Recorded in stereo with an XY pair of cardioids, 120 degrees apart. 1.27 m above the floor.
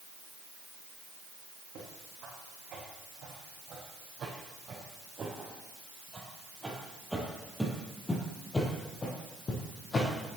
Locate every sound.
1.8 s footsteps: 65° right, 4.5 m; by 10.1 s 45° left, 3.5 m